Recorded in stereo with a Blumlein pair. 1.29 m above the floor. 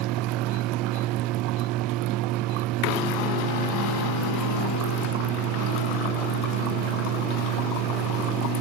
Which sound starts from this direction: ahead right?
A fan, at 0.0 s.